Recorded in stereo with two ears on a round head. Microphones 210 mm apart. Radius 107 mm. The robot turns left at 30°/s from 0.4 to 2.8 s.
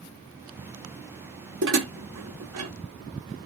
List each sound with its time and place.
1.6 s dishes clattering: 50° right (ahead or behind), 0.7 m; by 2.7 s 75° right (ahead or behind), 0.7 m